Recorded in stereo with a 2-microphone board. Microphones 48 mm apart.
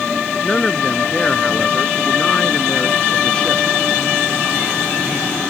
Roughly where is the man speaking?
Centre.